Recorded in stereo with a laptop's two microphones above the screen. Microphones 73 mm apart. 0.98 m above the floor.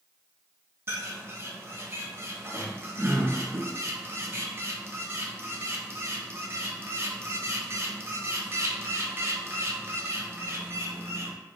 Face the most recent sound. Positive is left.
turn(degrees=-35)  # may be behind; listen again after turning